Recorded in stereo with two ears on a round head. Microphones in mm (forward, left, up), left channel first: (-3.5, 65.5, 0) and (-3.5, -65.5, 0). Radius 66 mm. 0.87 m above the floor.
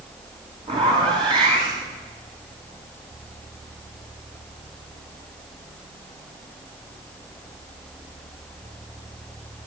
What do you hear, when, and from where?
0.7 s a zipper: 35° right (ahead or behind), 8 m